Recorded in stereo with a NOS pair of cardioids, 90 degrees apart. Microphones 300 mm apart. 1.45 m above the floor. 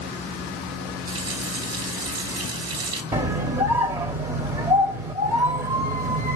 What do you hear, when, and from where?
1.1 s a running tap: 60° right, 3 m
3.1 s a scream: 20° right, 1.1 m